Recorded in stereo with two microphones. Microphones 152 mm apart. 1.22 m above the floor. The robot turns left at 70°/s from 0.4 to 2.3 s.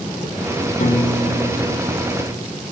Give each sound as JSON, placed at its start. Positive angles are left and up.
{"t": 0.8, "sound": "a piano", "azimuth_deg": 120, "distance_m": 2.5}